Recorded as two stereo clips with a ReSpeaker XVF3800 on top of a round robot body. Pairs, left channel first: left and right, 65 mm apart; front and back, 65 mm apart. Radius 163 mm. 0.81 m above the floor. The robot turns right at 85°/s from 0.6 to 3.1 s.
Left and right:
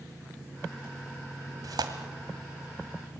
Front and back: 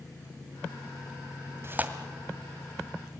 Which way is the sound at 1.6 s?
130° right.